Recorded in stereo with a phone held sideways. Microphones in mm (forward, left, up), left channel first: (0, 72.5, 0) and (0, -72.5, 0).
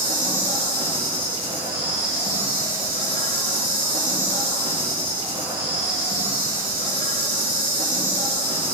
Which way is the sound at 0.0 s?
75° right (ahead or behind).